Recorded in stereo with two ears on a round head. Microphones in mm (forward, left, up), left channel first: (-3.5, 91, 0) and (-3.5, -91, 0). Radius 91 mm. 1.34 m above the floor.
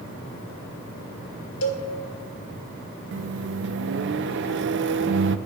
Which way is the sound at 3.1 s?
60° right (ahead or behind).